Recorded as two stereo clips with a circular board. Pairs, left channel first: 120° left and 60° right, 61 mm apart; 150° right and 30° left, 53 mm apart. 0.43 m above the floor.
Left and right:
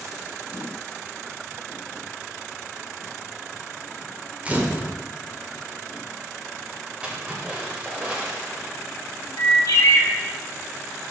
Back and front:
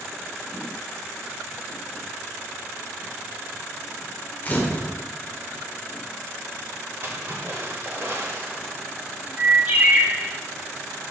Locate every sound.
4.5 s a camera shutter: 110° right, 1.0 m
7.0 s a splash: 5° left, 1.7 m
9.4 s a bird: 85° left, 1.0 m